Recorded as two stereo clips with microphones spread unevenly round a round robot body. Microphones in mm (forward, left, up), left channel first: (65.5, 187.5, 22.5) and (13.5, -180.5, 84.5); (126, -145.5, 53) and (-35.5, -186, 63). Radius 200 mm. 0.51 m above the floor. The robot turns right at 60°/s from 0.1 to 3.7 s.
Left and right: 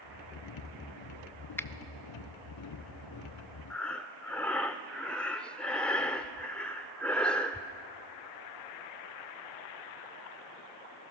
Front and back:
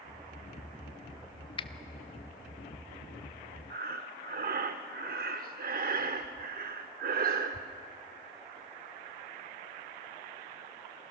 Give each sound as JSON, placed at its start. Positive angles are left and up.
{"t": 1.6, "sound": "a finger snap", "azimuth_deg": 15, "distance_m": 0.8}
{"t": 3.7, "sound": "breathing", "azimuth_deg": 165, "distance_m": 0.7}